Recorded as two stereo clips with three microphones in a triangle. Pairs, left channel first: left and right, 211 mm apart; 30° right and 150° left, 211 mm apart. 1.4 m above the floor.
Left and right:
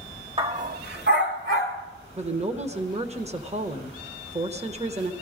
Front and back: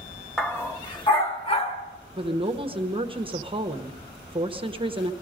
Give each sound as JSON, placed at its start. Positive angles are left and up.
{"t": 0.4, "sound": "a dog barking", "azimuth_deg": -115, "distance_m": 0.9}
{"t": 2.2, "sound": "a woman speaking", "azimuth_deg": -145, "distance_m": 1.0}